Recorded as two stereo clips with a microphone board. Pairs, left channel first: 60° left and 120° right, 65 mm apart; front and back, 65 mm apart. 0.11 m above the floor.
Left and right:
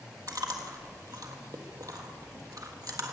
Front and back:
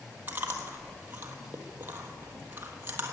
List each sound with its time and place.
0.3 s chewing: 125° right, 1.5 m